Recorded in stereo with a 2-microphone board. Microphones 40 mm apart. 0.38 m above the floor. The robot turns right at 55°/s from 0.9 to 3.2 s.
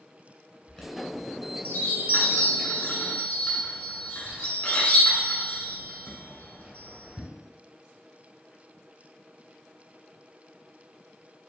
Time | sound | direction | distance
0.7 | a chime | 15° left (ahead or behind) | 1.5 m